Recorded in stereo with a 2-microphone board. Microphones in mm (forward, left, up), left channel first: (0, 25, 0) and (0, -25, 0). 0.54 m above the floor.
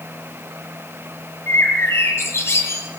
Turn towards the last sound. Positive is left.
turn(degrees=55)  # may be behind; listen again after turning